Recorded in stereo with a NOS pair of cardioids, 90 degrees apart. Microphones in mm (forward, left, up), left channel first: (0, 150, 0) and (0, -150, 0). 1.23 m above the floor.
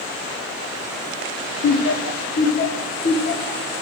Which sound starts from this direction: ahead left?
Laughter, at 1.6 s.